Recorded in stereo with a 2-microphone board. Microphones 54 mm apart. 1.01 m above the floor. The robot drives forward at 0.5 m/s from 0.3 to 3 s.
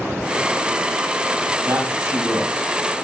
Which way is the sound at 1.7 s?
50° right (ahead or behind).